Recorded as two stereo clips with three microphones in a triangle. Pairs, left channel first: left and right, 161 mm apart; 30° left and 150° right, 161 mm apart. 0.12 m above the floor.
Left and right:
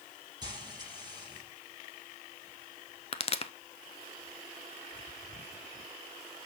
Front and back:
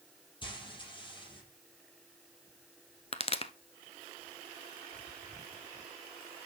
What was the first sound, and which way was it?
Frying, 30° right.